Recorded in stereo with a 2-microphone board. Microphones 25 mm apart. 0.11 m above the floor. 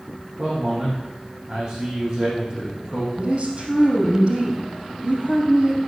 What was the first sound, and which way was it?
A man speaking, 45° right (ahead or behind).